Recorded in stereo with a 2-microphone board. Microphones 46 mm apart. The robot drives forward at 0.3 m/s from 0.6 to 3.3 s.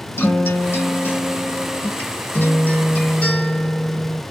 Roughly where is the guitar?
Left.